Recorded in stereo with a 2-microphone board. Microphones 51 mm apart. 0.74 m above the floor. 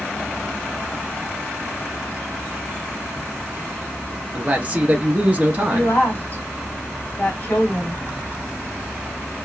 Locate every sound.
4.3 s a man speaking: 30° right (ahead or behind), 0.6 m
5.7 s a woman speaking: 45° left (ahead or behind), 1.4 m